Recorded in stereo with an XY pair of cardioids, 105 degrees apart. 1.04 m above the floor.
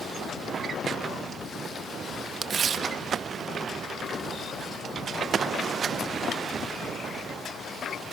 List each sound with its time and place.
2.4 s tearing paper: 50° right, 0.7 m